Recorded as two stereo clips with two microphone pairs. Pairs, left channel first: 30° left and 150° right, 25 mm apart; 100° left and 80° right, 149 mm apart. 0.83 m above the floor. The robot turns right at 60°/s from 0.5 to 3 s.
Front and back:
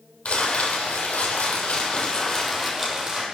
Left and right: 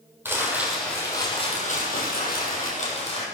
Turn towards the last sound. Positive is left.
turn(degrees=145)